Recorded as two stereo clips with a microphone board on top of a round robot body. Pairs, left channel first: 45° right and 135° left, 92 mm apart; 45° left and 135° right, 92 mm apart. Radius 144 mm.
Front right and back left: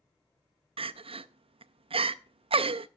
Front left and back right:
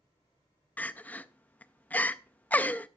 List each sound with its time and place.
0.8 s crying: 120° left, 0.5 m